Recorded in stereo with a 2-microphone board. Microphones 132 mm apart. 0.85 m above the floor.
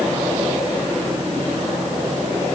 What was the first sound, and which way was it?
Only background noise.